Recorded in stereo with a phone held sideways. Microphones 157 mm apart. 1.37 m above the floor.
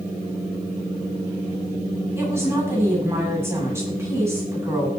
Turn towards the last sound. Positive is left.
turn(degrees=-15)  # may be behind; listen again after turning